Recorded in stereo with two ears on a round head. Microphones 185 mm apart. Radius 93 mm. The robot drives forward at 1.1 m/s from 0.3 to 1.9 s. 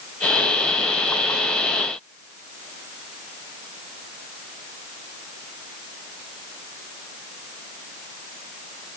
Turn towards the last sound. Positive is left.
No sound to turn to.